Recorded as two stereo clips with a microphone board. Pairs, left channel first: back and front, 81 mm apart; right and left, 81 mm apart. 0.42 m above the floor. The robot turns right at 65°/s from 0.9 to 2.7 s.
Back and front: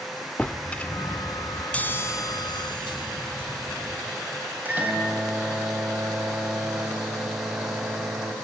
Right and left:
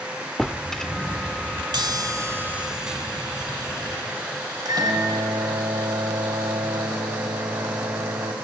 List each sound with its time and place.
0.4 s a drawer: 160° right, 0.5 m; by 1.6 s 110° right, 0.5 m
1.7 s a chime: 105° left, 1.5 m; by 4.0 s 170° left, 1.5 m
4.7 s a microwave: 65° left, 2.5 m